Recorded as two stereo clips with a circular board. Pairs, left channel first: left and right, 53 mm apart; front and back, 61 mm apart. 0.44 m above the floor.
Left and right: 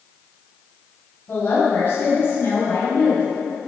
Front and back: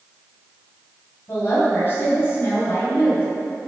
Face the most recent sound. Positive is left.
turn(degrees=45)